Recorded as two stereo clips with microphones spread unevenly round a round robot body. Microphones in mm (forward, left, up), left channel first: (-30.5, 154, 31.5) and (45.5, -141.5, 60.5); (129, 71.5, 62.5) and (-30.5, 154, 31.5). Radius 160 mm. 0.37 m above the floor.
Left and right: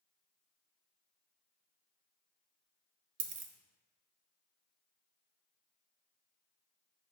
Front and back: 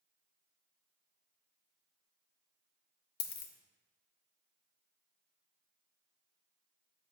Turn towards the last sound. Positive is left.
turn(degrees=-30)